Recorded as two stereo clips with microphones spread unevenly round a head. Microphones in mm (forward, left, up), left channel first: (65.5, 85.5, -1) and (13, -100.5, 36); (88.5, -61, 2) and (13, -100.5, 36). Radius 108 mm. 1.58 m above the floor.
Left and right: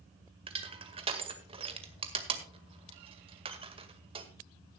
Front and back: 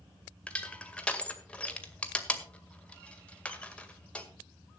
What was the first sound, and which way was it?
Crushing, 60° right.